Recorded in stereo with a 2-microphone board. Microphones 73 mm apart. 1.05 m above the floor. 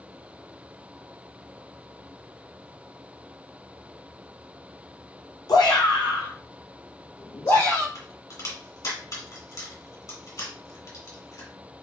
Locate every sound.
5.5 s a shout: 60° left (ahead or behind), 0.7 m; by 7.8 s 55° left (ahead or behind), 1.5 m
8.0 s a crack: 50° left (ahead or behind), 1.7 m